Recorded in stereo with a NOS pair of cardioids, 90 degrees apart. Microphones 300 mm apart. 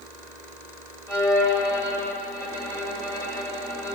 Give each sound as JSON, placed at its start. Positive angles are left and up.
{"t": 1.1, "sound": "a violin", "azimuth_deg": 10, "distance_m": 2.5}